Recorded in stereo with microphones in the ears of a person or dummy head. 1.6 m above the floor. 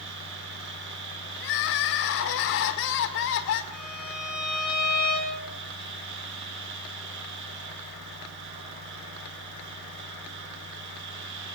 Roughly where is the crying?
Left.